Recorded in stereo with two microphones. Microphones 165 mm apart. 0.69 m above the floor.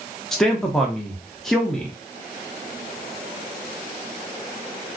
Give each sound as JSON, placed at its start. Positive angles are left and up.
{"t": 0.3, "sound": "a man speaking", "side_deg": 5, "distance_m": 0.6}